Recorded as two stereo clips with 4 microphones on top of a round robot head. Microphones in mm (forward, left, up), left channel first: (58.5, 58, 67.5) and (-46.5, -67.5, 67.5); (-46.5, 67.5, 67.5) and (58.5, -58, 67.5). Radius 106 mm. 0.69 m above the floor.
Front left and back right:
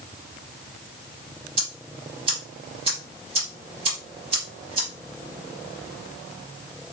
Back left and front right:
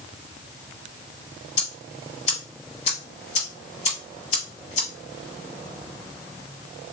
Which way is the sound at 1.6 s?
175° left.